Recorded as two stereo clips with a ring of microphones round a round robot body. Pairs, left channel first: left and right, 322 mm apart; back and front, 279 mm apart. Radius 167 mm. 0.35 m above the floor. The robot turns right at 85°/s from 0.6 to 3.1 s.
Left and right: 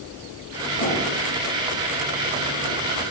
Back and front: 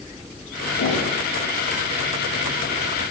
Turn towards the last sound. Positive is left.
turn(degrees=-30)